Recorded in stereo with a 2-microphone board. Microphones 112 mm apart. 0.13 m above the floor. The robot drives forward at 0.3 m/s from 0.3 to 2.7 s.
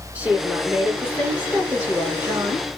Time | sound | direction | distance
0.1 | a woman speaking | 15° right (ahead or behind) | 1.6 m